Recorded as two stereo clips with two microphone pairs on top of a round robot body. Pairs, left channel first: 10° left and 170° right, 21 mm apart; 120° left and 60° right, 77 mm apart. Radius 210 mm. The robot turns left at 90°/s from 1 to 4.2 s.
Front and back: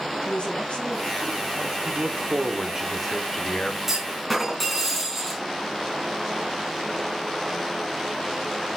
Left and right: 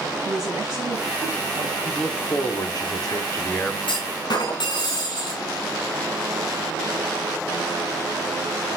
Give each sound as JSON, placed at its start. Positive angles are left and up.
{"t": 0.2, "sound": "a woman speaking", "azimuth_deg": 20, "distance_m": 4.0}
{"t": 1.9, "sound": "a man speaking", "azimuth_deg": -145, "distance_m": 2.5}
{"t": 3.9, "sound": "a clunk", "azimuth_deg": 125, "distance_m": 3.0}